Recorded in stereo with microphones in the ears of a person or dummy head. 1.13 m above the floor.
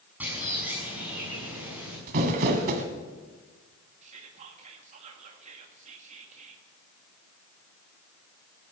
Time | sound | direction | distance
0.2 | a bird | 5° right (ahead or behind) | 7.5 m
2.1 | crumpling | 55° right (ahead or behind) | 2 m
4.0 | whispering | 40° right (ahead or behind) | 1.6 m